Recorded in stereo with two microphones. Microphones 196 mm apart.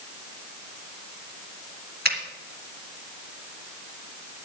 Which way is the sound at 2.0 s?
55° right (ahead or behind).